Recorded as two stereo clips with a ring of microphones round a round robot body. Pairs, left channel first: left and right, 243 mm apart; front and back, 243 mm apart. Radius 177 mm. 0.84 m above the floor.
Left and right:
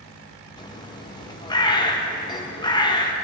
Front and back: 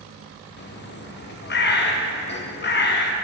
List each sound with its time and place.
0.6 s a bird: 20° left, 1.1 m